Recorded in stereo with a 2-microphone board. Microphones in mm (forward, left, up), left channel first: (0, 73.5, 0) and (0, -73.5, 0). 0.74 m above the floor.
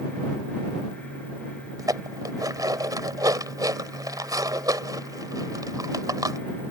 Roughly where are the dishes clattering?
Right.